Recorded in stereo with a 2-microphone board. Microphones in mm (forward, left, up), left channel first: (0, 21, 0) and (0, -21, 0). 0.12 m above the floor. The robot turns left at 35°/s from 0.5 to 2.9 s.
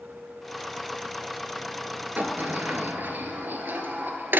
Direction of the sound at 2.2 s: 50° right (ahead or behind).